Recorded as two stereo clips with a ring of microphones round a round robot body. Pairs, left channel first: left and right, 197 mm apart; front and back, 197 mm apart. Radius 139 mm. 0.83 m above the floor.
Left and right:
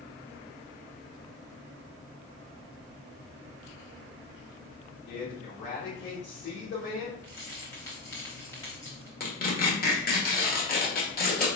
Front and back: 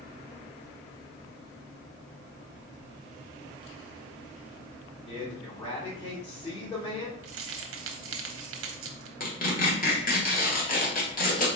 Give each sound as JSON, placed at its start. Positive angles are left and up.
{"t": 5.1, "sound": "a man speaking", "azimuth_deg": 65, "distance_m": 2.5}
{"t": 7.2, "sound": "keys jangling", "azimuth_deg": 170, "distance_m": 0.7}
{"t": 9.2, "sound": "tearing paper", "azimuth_deg": 45, "distance_m": 1.8}